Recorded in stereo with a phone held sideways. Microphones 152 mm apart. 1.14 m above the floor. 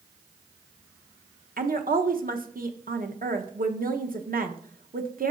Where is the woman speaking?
70° right (ahead or behind), 0.9 m.